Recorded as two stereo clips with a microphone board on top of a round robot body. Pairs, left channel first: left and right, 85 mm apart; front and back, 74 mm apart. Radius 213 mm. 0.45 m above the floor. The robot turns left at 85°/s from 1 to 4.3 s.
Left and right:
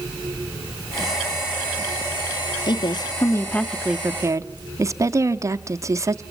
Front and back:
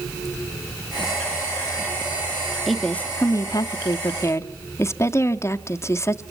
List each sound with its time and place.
2.7 s a woman speaking: 95° left, 1.1 m; by 6.2 s 45° right, 1.1 m